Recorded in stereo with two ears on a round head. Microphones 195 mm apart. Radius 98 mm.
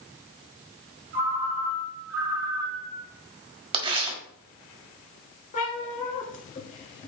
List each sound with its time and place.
1.1 s a ringtone: 65° right (ahead or behind), 2.5 m
3.7 s tearing paper: 25° right (ahead or behind), 1.6 m
5.5 s a cat meowing: 35° left (ahead or behind), 1.6 m